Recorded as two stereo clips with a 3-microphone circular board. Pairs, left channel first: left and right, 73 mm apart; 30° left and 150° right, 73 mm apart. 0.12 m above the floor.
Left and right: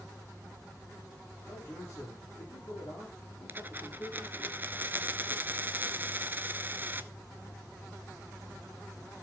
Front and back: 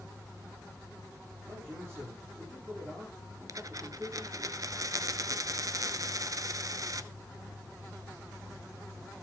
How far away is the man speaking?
About 4.5 m.